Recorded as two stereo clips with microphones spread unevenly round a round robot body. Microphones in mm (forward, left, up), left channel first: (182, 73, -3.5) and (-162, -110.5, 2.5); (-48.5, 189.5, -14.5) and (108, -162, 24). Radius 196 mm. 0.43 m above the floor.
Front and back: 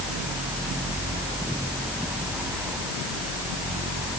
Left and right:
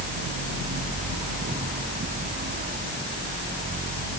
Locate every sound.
Only background noise.